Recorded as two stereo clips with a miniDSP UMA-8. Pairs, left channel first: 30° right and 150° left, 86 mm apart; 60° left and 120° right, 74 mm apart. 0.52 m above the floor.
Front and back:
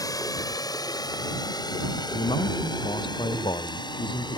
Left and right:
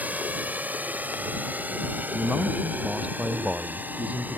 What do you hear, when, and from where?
0.0 s a drone: 60° right; by 4.4 s 55° right
2.1 s a man speaking: 50° right